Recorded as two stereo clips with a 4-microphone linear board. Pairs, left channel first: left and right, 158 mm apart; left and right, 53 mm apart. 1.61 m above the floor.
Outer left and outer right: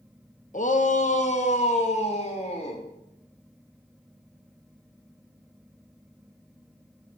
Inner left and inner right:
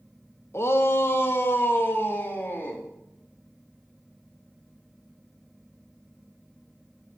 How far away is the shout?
About 1.1 m.